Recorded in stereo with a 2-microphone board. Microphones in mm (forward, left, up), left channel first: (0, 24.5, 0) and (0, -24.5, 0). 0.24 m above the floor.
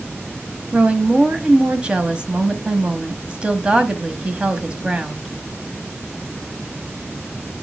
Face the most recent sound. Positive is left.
turn(degrees=-20)  # may be behind; listen again after turning